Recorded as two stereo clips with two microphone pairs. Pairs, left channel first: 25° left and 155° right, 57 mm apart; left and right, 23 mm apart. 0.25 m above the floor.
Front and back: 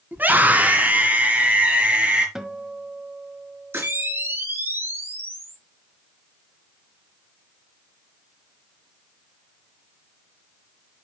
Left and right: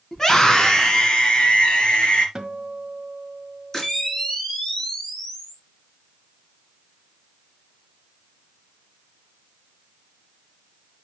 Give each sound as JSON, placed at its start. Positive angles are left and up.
{"t": 0.1, "sound": "a scream", "azimuth_deg": 160, "distance_m": 1.8}
{"t": 2.4, "sound": "a guitar", "azimuth_deg": -90, "distance_m": 1.3}
{"t": 3.7, "sound": "a camera shutter", "azimuth_deg": 160, "distance_m": 3.5}